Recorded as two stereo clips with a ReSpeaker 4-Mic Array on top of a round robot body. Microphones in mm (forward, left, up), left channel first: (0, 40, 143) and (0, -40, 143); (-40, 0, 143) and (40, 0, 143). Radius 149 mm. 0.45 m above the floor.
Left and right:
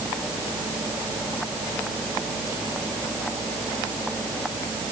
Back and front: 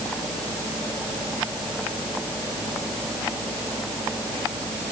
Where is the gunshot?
No gunshot in this recording.